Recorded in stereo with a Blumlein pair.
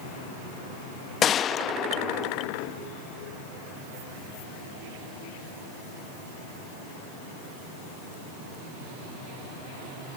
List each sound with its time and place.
1.2 s a gunshot: 25° left